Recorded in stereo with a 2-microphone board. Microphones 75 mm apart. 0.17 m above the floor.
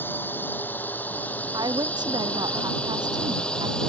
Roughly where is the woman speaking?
Right.